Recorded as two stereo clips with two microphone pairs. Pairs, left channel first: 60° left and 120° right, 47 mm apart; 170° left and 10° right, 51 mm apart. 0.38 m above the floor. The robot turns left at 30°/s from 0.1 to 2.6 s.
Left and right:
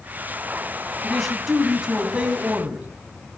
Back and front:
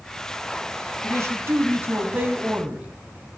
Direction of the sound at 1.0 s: 20° right.